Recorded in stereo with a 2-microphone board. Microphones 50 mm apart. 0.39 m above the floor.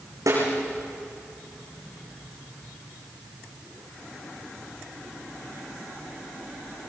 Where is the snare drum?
70° right (ahead or behind), 6.5 m.